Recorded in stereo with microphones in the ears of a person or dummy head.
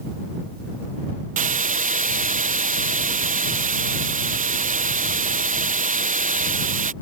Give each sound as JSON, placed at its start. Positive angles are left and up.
{"t": 1.4, "sound": "a hiss", "side_deg": -40}